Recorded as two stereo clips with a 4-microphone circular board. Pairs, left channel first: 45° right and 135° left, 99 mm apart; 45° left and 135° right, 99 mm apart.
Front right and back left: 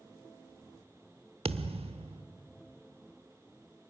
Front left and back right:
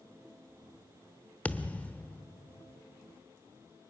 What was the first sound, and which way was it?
A thud, 120° left.